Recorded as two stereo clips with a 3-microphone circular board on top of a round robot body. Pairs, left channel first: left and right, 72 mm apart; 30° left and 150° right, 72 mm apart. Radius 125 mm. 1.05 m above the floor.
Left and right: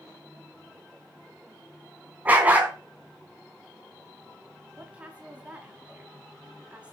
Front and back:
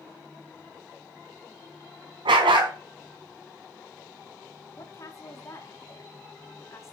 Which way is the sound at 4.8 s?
15° right.